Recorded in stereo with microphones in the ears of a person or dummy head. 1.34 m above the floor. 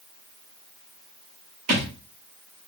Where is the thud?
50° right (ahead or behind), 1.9 m.